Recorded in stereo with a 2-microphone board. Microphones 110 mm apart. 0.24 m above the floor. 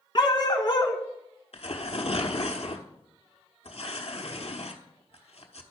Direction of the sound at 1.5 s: 65° left (ahead or behind).